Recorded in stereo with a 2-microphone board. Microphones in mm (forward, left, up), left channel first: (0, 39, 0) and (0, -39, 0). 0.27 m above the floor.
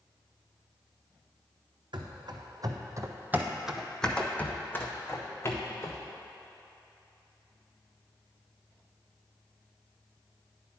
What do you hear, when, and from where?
1.9 s running footsteps: 75° right (ahead or behind), 0.9 m; by 6.0 s 45° left (ahead or behind), 1.5 m